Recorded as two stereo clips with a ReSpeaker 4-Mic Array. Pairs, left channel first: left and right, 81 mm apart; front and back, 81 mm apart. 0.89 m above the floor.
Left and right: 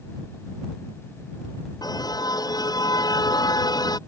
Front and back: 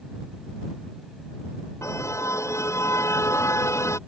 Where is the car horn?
55° left.